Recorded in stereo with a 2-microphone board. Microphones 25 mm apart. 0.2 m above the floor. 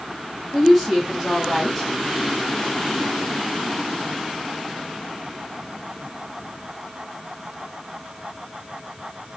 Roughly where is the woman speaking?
Centre.